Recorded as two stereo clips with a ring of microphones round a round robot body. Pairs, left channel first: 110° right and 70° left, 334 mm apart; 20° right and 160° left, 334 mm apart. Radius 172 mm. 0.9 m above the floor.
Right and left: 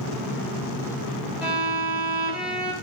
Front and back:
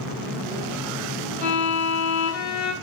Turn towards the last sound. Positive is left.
turn(degrees=-20)